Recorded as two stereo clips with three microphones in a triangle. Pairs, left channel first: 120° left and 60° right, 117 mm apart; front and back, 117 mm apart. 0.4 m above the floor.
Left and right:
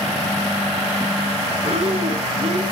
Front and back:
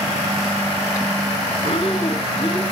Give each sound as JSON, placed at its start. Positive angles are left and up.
{"t": 1.6, "sound": "breathing", "azimuth_deg": -40, "distance_m": 1.3}